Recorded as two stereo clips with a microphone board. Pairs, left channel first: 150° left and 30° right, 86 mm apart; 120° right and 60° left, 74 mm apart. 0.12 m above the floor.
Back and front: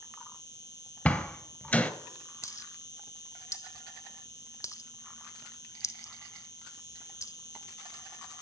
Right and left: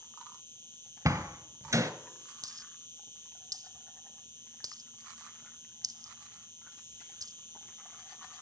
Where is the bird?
No bird in this recording.